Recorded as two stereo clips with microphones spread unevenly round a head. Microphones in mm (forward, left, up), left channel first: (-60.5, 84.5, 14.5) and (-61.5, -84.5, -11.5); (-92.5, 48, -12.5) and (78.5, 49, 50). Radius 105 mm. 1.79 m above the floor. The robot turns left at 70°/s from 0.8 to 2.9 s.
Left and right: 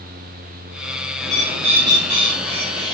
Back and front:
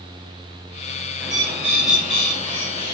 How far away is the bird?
About 1.6 m.